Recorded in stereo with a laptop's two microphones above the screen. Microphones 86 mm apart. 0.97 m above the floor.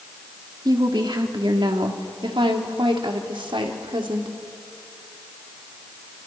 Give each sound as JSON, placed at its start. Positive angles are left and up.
{"t": 0.7, "sound": "a woman speaking", "side_deg": -55, "distance_m": 2.5}